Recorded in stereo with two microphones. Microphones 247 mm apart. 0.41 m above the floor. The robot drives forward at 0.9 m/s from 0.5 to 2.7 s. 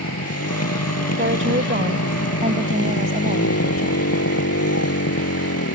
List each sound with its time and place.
0.0 s a motorcycle: 85° left; by 5.8 s 75° left (ahead or behind)
1.2 s a woman speaking: 55° right (ahead or behind); by 4.1 s 30° right (ahead or behind)